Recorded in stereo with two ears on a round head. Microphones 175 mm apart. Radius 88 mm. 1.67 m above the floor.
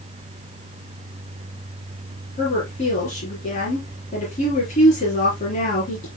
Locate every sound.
2.4 s a woman speaking: 40° left (ahead or behind), 4 m